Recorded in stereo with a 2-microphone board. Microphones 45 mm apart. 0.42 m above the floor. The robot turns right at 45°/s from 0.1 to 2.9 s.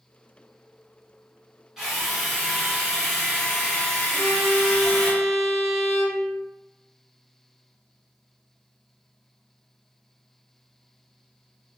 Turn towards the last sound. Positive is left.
turn(degrees=0)  # may be behind; listen again after turning